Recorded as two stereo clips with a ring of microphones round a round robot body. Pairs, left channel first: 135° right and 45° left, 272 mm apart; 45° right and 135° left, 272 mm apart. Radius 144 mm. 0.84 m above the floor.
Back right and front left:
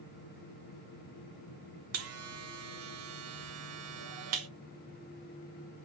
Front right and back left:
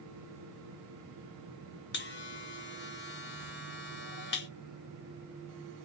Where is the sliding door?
No sliding door in this recording.